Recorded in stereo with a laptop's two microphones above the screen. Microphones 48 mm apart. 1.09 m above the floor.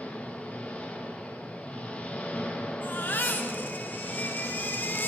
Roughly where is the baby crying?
Left.